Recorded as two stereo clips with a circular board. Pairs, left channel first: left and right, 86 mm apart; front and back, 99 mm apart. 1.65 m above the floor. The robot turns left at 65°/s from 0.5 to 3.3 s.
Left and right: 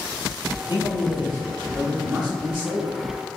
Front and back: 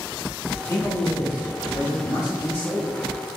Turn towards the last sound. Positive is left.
turn(degrees=-120)